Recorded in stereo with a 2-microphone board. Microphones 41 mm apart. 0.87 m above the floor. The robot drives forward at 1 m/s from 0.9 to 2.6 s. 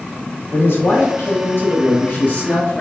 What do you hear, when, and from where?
0.5 s a man speaking: 65° left (ahead or behind), 1.5 m; by 2.8 s 40° left (ahead or behind), 2 m